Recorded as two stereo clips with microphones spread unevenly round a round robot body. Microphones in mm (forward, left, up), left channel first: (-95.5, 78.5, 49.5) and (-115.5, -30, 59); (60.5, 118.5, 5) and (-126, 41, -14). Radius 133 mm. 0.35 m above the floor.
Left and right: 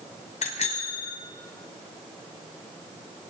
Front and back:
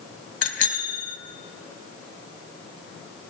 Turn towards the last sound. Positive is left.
turn(degrees=50)